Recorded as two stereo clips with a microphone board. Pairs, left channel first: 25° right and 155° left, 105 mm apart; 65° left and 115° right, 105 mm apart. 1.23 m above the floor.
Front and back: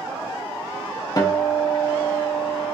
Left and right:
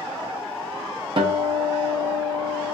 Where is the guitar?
75° right, 0.5 m.